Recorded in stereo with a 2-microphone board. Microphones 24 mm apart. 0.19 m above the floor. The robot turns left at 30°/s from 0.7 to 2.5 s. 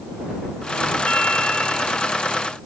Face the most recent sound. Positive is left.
turn(degrees=20)